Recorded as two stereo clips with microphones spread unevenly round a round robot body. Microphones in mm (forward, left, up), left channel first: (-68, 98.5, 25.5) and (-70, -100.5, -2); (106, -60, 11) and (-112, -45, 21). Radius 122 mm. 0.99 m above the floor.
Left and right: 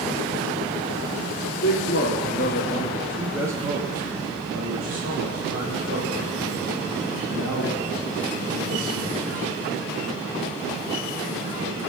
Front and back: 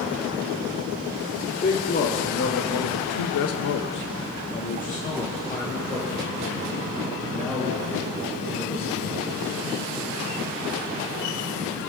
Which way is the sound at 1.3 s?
55° left.